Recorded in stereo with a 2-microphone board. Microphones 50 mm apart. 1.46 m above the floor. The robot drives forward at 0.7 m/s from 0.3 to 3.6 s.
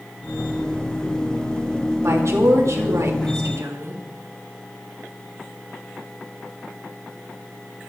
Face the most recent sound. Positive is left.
turn(degrees=-85)